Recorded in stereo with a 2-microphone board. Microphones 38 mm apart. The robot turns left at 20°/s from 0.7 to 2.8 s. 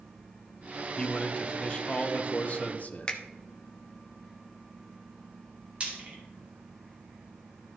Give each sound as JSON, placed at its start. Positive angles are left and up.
{"t": 1.0, "sound": "a man speaking", "azimuth_deg": 150, "distance_m": 0.8}
{"t": 3.1, "sound": "a finger snap", "side_deg": 25, "distance_m": 0.9}
{"t": 5.8, "sound": "frying", "side_deg": -25, "distance_m": 2.0}